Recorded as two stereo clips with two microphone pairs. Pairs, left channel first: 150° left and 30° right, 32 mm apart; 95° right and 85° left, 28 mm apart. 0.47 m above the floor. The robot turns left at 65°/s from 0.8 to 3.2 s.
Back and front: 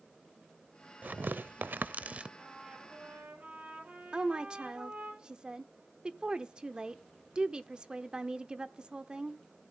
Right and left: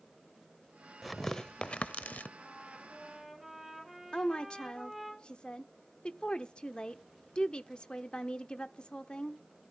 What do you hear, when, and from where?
1.0 s tearing paper: straight ahead, 0.6 m; by 2.3 s 80° right, 0.6 m
2.4 s a trumpet: 60° left, 6.5 m; by 5.1 s 5° left, 6.5 m
4.1 s a woman speaking: 65° right, 0.9 m